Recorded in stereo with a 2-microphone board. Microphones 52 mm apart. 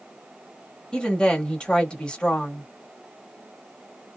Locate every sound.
0.9 s a woman speaking: 20° left (ahead or behind), 1.3 m